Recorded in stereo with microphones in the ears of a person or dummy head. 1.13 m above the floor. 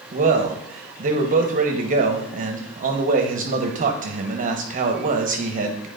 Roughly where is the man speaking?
Right.